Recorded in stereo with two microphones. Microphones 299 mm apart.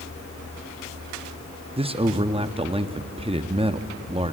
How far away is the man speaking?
About 0.6 m.